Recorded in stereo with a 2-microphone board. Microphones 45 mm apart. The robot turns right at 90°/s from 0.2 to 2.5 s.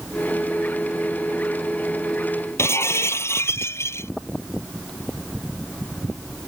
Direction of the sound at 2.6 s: 75° left (ahead or behind).